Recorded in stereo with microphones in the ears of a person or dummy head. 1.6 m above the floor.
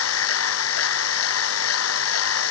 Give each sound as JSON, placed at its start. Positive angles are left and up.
{"t": 0.0, "sound": "a machine running", "side_deg": 80}